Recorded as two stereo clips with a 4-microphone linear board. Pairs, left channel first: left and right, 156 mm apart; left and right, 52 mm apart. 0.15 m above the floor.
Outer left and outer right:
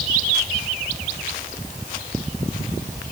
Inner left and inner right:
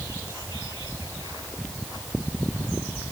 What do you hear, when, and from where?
Only background noise.